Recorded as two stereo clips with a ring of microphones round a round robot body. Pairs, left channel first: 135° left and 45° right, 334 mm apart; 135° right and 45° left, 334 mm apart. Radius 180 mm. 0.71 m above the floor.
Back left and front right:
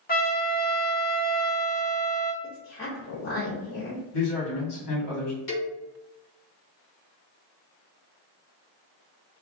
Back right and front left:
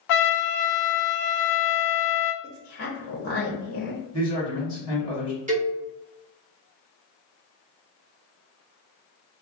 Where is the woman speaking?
175° right, 1.1 m.